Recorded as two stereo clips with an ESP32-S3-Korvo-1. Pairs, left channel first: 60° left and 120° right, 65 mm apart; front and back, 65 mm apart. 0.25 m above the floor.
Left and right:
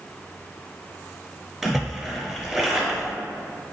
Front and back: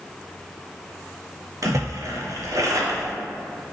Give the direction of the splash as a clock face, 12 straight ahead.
7 o'clock.